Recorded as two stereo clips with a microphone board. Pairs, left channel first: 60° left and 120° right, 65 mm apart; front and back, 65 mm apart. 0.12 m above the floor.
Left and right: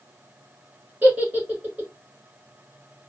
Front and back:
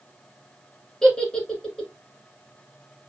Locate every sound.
1.0 s a giggle: 80° right, 1.2 m